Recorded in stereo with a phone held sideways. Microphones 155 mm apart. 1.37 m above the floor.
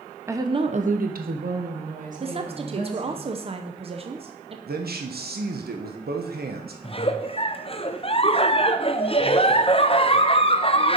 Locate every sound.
0.3 s a woman speaking: 15° right (ahead or behind), 1.0 m; by 3.2 s 50° right (ahead or behind), 3 m
2.2 s a woman speaking: 40° right (ahead or behind), 0.5 m
4.7 s a man speaking: 85° right, 0.9 m
6.8 s a giggle: 40° left (ahead or behind), 0.5 m